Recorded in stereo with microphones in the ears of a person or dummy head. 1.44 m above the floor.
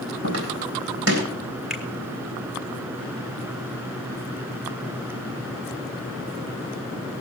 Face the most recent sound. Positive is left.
turn(degrees=-5)  # may be behind; listen again after turning